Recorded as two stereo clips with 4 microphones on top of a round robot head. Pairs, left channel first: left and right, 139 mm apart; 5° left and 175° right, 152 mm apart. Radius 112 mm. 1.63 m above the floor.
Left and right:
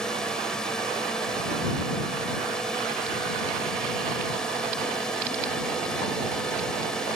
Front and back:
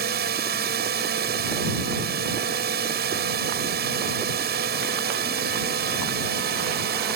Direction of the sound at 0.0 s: 175° left.